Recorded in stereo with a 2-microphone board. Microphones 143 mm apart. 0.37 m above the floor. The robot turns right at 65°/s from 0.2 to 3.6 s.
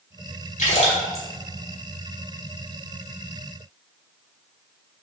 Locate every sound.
0.6 s a splash: 60° left (ahead or behind), 1.0 m; by 1.2 s 15° left (ahead or behind), 1.0 m